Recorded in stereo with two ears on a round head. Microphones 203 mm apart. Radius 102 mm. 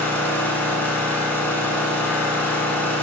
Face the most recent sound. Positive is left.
turn(degrees=5)  # may be behind; listen again after turning